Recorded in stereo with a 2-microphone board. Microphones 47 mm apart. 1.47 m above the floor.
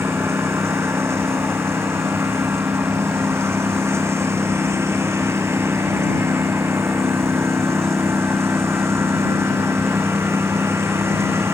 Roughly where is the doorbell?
No doorbell in this recording.